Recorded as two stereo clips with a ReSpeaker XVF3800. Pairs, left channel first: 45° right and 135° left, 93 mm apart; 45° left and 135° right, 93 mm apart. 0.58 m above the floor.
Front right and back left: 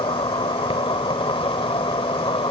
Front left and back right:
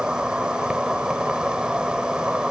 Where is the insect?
55° right.